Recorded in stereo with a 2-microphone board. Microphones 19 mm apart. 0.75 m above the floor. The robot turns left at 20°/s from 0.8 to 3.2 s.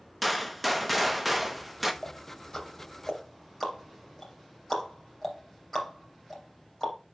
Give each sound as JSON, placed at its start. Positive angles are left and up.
{"t": 0.2, "sound": "a gunshot", "side_deg": -5, "distance_m": 0.7}
{"t": 2.0, "sound": "ticking", "side_deg": 45, "distance_m": 3.0}